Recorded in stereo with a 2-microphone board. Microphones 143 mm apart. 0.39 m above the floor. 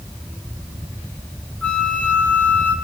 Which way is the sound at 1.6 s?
10° left (ahead or behind).